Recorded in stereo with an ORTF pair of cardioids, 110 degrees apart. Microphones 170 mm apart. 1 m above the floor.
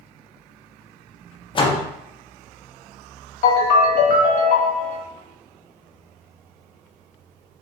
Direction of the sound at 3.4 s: 55° left.